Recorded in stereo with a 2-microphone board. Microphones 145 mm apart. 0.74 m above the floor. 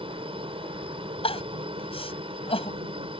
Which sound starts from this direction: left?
Crying, at 1.2 s.